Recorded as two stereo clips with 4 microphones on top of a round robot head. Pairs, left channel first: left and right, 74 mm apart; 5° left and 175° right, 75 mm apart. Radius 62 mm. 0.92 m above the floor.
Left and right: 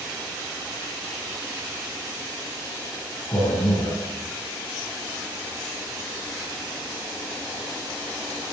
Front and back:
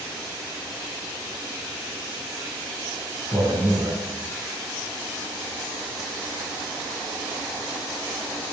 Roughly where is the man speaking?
Behind left.